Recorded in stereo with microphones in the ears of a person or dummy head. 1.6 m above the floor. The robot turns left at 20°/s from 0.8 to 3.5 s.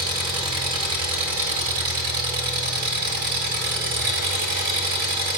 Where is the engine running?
35° right, 1.7 m; by 5.4 s 90° right, 1.7 m.